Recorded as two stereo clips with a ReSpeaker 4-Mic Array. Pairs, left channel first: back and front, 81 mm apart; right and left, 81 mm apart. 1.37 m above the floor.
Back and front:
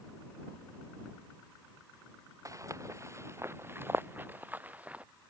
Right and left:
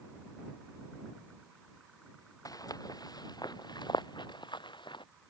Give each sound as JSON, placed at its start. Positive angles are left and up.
{"t": 2.5, "sound": "footsteps", "azimuth_deg": -45}